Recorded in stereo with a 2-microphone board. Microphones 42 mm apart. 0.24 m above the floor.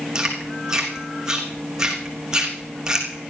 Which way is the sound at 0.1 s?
15° right (ahead or behind).